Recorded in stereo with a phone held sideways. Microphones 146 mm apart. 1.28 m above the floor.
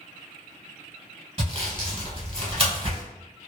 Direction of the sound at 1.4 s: 40° right (ahead or behind).